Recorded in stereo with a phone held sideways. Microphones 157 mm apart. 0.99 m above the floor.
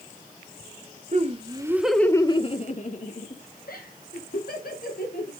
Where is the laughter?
45° right (ahead or behind), 0.9 m; by 5.3 s 75° left (ahead or behind), 3 m.